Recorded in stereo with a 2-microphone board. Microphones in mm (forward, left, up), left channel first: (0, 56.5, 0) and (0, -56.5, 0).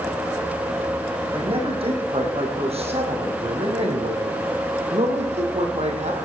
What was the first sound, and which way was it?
A man speaking, 55° right (ahead or behind).